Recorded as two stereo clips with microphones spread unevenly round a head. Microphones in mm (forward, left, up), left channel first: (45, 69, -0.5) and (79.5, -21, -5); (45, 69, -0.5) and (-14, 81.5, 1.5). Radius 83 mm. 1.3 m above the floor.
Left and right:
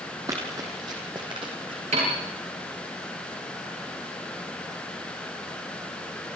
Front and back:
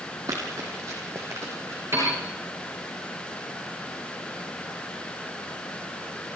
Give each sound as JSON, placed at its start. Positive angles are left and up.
{"t": 0.3, "sound": "running footsteps", "azimuth_deg": -140, "distance_m": 3.5}
{"t": 1.9, "sound": "a piano", "azimuth_deg": -120, "distance_m": 9.5}